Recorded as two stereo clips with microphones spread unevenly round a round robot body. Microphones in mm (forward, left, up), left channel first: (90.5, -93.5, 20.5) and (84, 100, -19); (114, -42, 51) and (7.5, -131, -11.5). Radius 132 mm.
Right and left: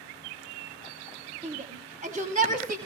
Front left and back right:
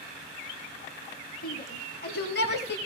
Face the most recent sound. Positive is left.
turn(degrees=60)